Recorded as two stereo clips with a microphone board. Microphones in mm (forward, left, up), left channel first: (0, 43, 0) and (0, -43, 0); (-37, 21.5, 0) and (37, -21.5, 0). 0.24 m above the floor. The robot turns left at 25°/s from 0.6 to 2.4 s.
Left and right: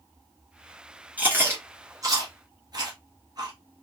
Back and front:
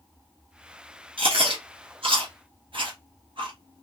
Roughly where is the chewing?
Ahead.